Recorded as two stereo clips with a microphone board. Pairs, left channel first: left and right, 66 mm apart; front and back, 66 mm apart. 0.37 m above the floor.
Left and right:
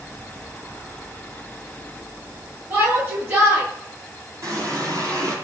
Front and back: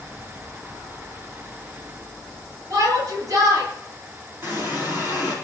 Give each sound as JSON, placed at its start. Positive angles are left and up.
{"t": 2.7, "sound": "a shout", "azimuth_deg": -145, "distance_m": 10.0}
{"t": 4.4, "sound": "a running tap", "azimuth_deg": -125, "distance_m": 8.0}